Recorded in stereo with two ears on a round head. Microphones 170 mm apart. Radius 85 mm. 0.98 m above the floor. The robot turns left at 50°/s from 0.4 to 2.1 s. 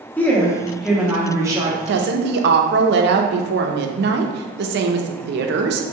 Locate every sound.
0.2 s a woman speaking: 10° left (ahead or behind), 0.8 m; by 1.8 s 20° right (ahead or behind), 0.8 m
1.9 s a woman speaking: 65° right (ahead or behind), 0.6 m; by 5.8 s 60° right (ahead or behind), 0.6 m